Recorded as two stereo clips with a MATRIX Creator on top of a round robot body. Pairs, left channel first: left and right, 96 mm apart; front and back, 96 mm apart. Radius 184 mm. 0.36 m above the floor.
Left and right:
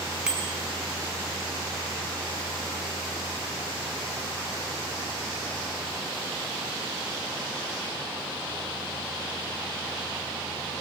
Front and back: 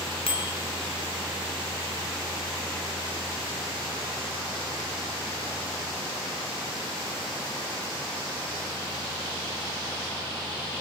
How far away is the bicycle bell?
About 4 m.